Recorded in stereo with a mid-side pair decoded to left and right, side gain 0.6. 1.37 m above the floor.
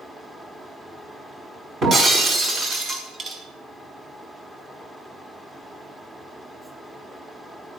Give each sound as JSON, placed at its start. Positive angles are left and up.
{"t": 0.0, "sound": "a fan", "azimuth_deg": -10, "distance_m": 1.9}
{"t": 1.8, "sound": "breaking glass", "azimuth_deg": -30, "distance_m": 4.5}